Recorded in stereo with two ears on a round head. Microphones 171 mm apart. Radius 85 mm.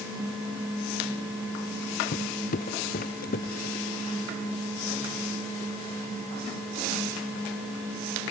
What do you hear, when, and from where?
2.1 s footsteps: 45° left (ahead or behind); by 3.9 s 50° left (ahead or behind)